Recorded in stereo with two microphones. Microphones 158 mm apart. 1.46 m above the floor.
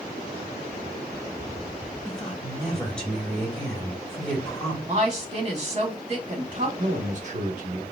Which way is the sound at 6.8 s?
50° right (ahead or behind).